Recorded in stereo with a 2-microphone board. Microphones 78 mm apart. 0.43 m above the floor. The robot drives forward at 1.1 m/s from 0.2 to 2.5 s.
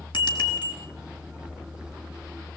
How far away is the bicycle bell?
About 4 m.